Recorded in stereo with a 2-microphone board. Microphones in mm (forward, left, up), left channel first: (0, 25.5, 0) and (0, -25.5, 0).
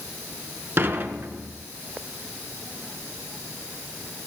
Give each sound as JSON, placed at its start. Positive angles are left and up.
{"t": 0.8, "sound": "dishes clattering", "side_deg": -45, "distance_m": 1.3}